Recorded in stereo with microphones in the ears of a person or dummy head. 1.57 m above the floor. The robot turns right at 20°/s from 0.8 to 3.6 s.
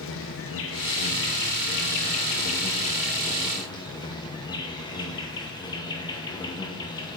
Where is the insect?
105° left, 0.7 m; by 7.2 s 160° left, 0.7 m.